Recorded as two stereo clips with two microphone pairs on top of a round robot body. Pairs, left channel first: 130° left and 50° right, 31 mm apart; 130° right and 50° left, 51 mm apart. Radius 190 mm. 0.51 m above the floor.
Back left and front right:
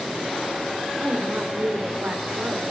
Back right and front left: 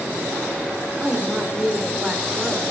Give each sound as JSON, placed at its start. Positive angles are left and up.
{"t": 1.0, "sound": "a woman speaking", "azimuth_deg": -25, "distance_m": 3.0}